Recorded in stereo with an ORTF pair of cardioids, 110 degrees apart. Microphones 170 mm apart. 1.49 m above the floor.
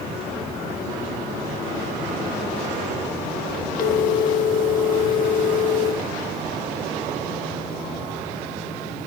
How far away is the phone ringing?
About 1.8 m.